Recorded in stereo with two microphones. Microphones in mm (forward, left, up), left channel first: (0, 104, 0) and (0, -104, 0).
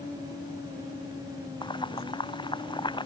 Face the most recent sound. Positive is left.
turn(degrees=20)  # may be behind; listen again after turning